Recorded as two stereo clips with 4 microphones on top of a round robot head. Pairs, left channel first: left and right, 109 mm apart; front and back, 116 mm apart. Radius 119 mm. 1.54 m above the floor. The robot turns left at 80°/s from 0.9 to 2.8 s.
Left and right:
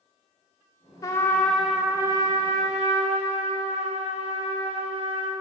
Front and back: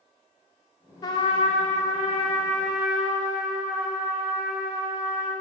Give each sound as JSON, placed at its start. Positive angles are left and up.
{"t": 1.0, "sound": "a trumpet", "azimuth_deg": 45, "distance_m": 0.9}